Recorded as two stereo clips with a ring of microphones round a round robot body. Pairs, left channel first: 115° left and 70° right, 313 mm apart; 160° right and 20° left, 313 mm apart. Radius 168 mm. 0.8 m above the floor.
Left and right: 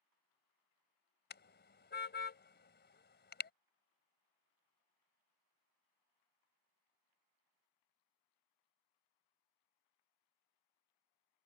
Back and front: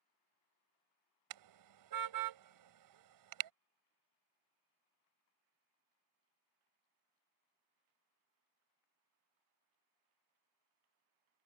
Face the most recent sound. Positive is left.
turn(degrees=50)